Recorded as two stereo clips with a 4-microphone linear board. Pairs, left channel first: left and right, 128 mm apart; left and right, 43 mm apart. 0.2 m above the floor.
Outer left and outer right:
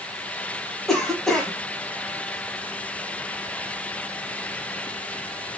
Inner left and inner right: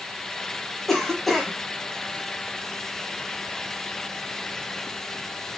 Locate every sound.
0.9 s a cough: centre (ahead or behind), 1.0 m